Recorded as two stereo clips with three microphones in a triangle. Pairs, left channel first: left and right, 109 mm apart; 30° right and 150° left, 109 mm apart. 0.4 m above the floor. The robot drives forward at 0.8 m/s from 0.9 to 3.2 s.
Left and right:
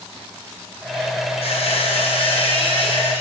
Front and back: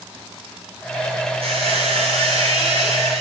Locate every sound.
1.4 s a squeak: 120° left, 5 m; by 3.2 s 135° left, 6 m